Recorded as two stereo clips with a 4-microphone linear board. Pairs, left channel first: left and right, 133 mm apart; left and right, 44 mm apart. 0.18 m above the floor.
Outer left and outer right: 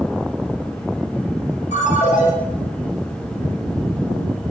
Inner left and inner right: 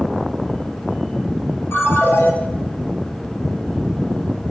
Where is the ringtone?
65° left (ahead or behind), 1.8 m.